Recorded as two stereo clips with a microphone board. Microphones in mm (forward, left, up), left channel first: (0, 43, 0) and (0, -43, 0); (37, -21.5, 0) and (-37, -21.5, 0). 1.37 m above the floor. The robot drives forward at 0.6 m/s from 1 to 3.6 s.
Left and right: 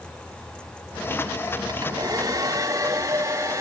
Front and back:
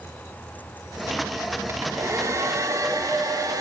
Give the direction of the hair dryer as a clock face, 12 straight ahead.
4 o'clock.